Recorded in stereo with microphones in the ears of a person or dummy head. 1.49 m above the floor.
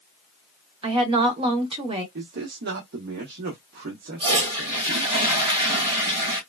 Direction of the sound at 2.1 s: 55° right (ahead or behind).